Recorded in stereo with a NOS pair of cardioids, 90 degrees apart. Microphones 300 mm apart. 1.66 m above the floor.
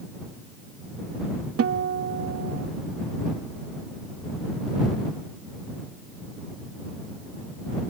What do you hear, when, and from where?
1.6 s a guitar: 50° right